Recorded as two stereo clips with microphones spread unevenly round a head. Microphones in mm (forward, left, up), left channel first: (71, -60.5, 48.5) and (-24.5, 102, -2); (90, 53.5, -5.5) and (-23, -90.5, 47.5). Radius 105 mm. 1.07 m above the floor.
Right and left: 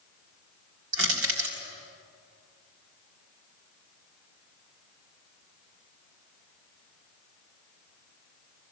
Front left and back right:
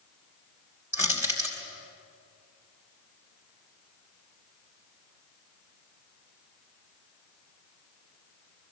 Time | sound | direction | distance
0.9 | crushing | 155° left | 4 m